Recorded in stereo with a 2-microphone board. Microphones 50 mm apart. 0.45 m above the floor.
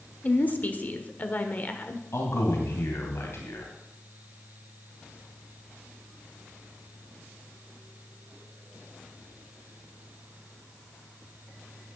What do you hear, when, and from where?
0.2 s a woman speaking: 35° left (ahead or behind), 1.5 m
2.1 s a man speaking: 65° left (ahead or behind), 2.5 m